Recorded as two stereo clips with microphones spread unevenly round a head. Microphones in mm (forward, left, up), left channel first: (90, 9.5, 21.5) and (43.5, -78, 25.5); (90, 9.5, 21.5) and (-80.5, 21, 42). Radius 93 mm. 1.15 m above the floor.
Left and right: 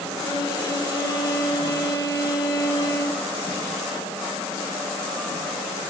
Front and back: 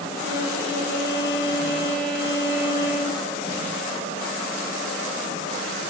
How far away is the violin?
About 6.5 m.